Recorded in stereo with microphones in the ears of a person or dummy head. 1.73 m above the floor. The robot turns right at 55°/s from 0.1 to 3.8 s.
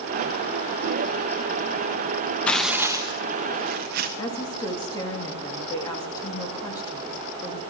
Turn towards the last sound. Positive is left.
turn(degrees=25)  # may be behind; listen again after turning